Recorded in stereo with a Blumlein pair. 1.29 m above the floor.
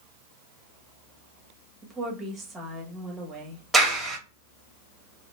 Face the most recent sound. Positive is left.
turn(degrees=-10)